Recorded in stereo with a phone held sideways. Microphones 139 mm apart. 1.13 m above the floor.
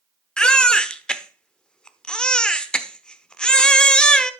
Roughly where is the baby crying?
Centre.